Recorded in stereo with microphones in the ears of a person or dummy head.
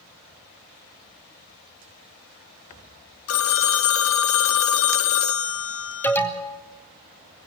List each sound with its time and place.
3.3 s a phone ringing: 70° left (ahead or behind), 0.9 m
6.0 s an alarm: 15° left (ahead or behind), 2 m